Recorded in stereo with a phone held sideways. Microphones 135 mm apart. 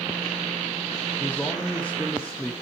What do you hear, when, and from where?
1.2 s a man speaking: 10° left (ahead or behind), 1.5 m